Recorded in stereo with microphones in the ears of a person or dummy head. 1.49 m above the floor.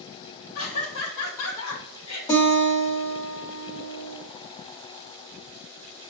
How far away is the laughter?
About 2 m.